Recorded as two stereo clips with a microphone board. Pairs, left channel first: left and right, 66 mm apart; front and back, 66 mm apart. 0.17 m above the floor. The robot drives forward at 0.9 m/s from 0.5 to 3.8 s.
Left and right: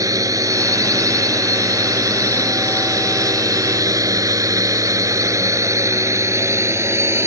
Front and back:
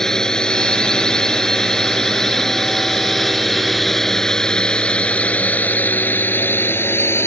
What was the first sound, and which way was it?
A drone, 80° right.